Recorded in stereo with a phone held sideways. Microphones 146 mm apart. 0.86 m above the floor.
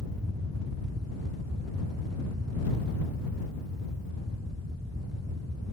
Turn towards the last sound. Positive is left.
turn(degrees=-25)  # may be behind; listen again after turning